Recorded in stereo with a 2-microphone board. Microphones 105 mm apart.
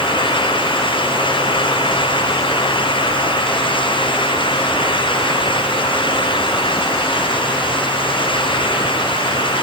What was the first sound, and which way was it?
Only background noise.